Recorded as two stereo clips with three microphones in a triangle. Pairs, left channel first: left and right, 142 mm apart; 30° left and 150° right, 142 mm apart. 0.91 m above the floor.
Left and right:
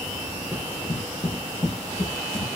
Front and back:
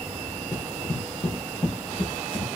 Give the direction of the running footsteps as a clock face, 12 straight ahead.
12 o'clock.